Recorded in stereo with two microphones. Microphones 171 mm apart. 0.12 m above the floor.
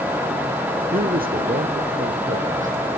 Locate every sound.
0.9 s a man speaking: 60° right (ahead or behind), 2.5 m; by 2.9 s 50° right (ahead or behind), 4 m